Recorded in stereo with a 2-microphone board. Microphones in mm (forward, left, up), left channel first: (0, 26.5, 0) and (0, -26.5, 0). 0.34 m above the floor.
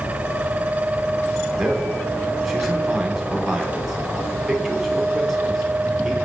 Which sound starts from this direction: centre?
A man speaking, at 1.6 s.